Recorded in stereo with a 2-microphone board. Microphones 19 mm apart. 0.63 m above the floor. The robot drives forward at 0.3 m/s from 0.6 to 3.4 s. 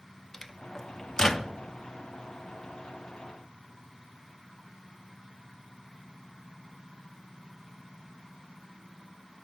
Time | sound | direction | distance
0.3 | a microwave | 25° left (ahead or behind) | 0.6 m